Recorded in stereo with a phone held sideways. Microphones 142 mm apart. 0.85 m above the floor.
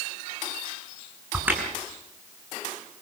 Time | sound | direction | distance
1.3 | a crack | 10° right (ahead or behind) | 6.5 m